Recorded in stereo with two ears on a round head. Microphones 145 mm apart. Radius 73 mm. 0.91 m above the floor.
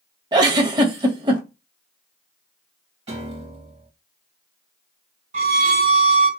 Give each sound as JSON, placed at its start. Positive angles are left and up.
{"t": 0.3, "sound": "a giggle", "side_deg": -25, "distance_m": 0.6}
{"t": 3.1, "sound": "a piano", "side_deg": -35, "distance_m": 0.9}
{"t": 5.3, "sound": "a violin", "side_deg": -50, "distance_m": 1.8}